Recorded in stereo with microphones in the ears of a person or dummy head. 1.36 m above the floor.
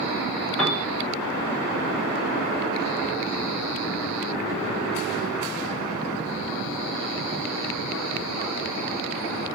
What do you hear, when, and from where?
0.6 s a piano: 10° left (ahead or behind), 0.6 m